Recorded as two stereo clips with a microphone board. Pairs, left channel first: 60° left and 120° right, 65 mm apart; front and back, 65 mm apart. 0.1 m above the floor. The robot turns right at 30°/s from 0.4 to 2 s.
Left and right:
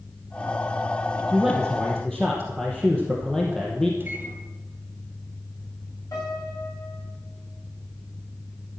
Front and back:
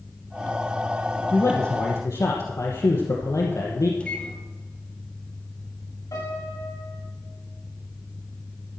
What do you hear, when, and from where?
1.3 s a man speaking: 40° right, 2.5 m; by 3.9 s 20° right, 2.5 m
4.0 s a microwave: 70° right, 2.5 m
6.1 s a piano: 25° left, 8.5 m